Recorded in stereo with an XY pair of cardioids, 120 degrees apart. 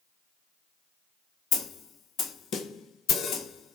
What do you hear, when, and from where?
1.5 s a snare drum: 60° left, 0.5 m